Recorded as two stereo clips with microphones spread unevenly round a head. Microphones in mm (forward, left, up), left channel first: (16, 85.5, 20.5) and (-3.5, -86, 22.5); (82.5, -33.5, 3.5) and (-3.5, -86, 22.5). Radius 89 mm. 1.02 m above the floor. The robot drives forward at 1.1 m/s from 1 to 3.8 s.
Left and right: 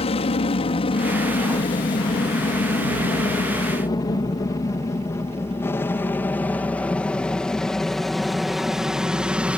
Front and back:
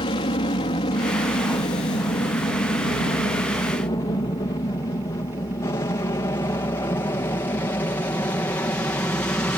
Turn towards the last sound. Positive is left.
turn(degrees=-20)